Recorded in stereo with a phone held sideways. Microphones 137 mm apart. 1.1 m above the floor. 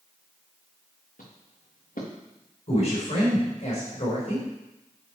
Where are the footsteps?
75° left (ahead or behind), 4 m.